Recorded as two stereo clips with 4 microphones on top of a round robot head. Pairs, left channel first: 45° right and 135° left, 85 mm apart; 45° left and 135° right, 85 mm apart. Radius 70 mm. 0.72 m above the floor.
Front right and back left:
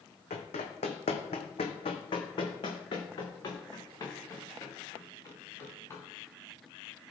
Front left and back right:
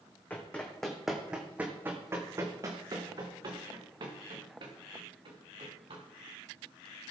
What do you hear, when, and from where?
0.3 s running footsteps: 25° right, 2.0 m; by 6.0 s 110° right, 5 m